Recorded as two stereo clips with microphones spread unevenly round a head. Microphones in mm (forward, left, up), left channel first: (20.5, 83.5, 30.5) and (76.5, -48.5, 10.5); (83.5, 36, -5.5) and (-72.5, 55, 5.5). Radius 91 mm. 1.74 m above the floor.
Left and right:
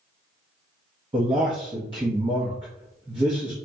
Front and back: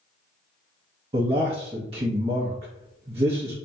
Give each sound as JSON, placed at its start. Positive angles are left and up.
{"t": 1.1, "sound": "a man speaking", "azimuth_deg": -135, "distance_m": 0.7}